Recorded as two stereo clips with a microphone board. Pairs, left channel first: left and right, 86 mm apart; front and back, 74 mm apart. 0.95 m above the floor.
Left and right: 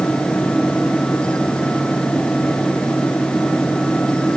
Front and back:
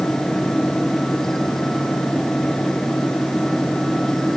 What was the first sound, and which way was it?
Only background noise.